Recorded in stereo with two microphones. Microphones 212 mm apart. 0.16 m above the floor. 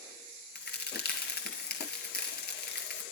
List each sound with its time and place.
0.6 s a crack: 50° left (ahead or behind), 1.5 m